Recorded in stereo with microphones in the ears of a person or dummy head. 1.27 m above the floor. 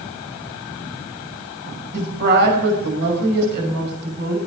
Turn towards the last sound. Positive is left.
turn(degrees=-60)  # may be behind; listen again after turning